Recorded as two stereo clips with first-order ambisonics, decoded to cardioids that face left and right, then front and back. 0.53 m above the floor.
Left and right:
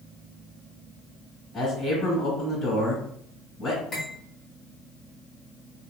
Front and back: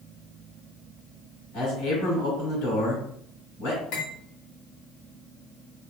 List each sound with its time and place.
1.5 s a man speaking: 10° left, 2.5 m
3.9 s cutlery clinking: 20° left, 1.8 m